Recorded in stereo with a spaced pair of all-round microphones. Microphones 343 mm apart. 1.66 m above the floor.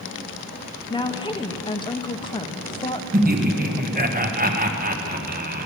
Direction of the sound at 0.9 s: 15° left (ahead or behind).